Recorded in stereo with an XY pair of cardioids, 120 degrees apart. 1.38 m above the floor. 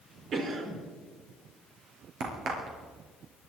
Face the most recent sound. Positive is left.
turn(degrees=-60)